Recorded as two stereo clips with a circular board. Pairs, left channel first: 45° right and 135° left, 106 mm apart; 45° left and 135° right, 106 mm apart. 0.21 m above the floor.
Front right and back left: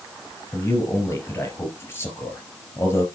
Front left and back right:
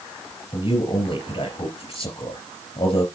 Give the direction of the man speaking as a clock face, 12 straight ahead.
11 o'clock.